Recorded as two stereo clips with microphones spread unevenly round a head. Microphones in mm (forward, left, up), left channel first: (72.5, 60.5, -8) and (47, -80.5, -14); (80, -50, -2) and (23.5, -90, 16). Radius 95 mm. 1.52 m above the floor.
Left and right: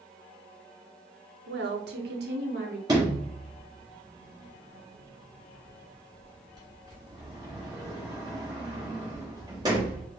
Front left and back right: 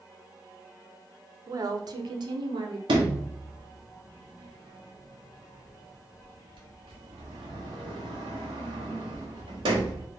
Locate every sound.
1.5 s a woman speaking: 105° right, 0.8 m; by 2.8 s 150° right, 1.0 m
2.9 s a sliding door: 170° right, 1.0 m